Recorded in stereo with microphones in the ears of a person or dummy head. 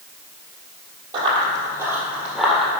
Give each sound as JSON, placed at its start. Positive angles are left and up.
{"t": 1.1, "sound": "running footsteps", "side_deg": -25, "distance_m": 1.8}